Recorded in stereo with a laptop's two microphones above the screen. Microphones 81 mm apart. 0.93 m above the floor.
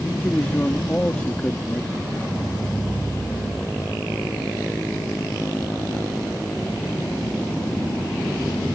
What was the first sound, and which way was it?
A man speaking, 20° left (ahead or behind).